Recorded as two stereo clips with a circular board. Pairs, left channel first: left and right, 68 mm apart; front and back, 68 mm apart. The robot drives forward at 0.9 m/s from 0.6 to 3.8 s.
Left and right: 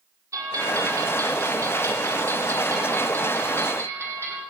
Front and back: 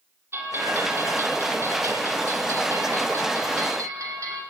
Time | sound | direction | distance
0.3 | a bell | 130° right | 7.5 m